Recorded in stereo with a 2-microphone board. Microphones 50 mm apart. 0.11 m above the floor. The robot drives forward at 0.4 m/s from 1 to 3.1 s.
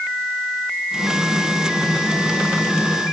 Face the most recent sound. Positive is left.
No sound to turn to.